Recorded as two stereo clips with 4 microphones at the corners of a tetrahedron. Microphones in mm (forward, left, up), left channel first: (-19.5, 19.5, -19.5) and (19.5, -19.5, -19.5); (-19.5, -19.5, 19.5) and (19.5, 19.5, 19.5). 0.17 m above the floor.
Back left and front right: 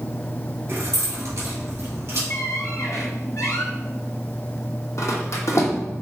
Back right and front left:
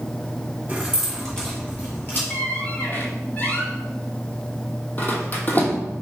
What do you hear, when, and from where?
0.7 s keys jangling: 20° right, 1.5 m; by 2.2 s 80° right, 2.5 m
2.3 s a squeak: 165° left, 0.9 m